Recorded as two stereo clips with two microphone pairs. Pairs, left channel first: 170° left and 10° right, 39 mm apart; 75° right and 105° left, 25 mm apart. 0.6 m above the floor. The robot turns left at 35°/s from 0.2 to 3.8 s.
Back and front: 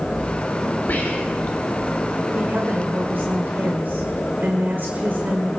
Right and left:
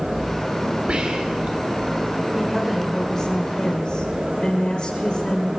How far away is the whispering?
About 2 m.